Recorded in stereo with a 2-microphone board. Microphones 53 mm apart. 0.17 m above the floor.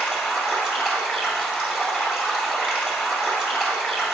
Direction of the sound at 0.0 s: 10° right (ahead or behind).